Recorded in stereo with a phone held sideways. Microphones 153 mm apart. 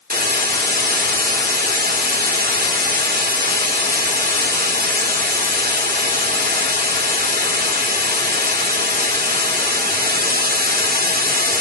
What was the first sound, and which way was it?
A hiss, 80° right.